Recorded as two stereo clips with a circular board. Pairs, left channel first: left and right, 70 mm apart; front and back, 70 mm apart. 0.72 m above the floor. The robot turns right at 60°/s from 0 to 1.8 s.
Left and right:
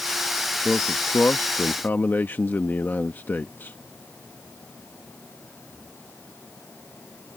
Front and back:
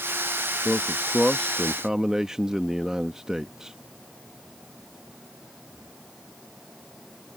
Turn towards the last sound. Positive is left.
turn(degrees=110)